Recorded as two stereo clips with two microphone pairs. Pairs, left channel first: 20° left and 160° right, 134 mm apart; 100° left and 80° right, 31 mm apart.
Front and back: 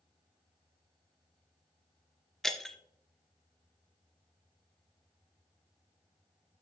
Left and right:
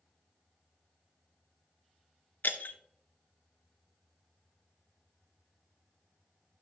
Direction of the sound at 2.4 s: 105° left.